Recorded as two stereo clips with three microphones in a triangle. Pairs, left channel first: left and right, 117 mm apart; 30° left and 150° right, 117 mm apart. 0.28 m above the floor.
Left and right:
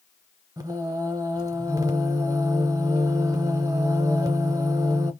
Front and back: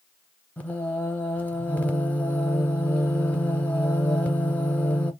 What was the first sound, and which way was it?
Singing, 45° right.